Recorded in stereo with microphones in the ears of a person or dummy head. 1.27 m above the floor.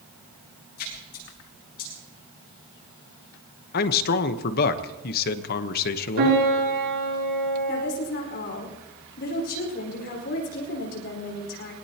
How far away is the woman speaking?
About 4.5 m.